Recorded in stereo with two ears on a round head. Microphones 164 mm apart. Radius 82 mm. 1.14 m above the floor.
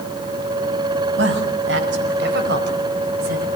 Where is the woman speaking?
70° right (ahead or behind), 6 m; by 3.5 s 50° right (ahead or behind), 4 m.